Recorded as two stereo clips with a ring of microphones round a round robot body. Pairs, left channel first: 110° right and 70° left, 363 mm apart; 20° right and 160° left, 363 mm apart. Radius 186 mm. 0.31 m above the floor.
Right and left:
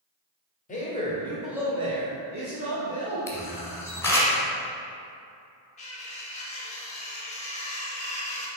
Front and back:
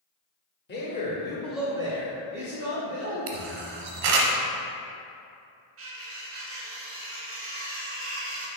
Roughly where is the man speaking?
Ahead right.